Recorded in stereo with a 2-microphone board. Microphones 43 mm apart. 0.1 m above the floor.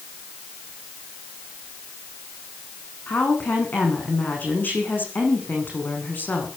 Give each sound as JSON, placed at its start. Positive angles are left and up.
{"t": 3.1, "sound": "a woman speaking", "side_deg": 45, "distance_m": 8.0}